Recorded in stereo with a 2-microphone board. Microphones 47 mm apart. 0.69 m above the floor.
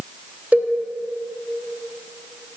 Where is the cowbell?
30° right (ahead or behind), 0.7 m.